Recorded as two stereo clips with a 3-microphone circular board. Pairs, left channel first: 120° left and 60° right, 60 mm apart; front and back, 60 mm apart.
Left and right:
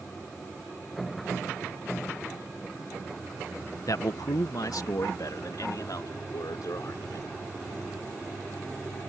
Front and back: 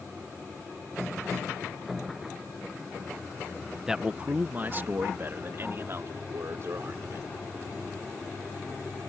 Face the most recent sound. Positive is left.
turn(degrees=140)